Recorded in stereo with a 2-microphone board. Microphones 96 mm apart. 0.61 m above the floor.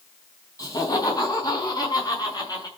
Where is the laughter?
40° left (ahead or behind), 4.5 m.